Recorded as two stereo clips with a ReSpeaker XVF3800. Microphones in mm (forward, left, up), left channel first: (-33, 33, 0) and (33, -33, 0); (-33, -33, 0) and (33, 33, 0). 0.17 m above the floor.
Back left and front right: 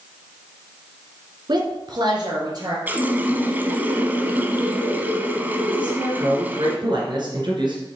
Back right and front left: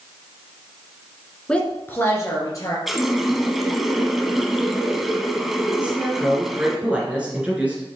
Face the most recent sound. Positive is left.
turn(degrees=-30)